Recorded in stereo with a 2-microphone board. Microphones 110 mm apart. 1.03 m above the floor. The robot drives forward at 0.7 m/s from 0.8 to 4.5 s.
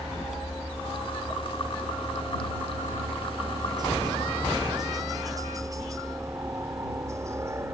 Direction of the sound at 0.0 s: 55° right (ahead or behind).